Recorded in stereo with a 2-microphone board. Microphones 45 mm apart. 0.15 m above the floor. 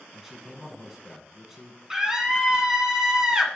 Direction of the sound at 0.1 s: 5° right (ahead or behind).